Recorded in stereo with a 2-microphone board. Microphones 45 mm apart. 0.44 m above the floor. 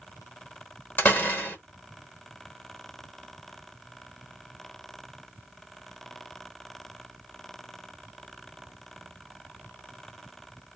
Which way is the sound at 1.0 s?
45° left (ahead or behind).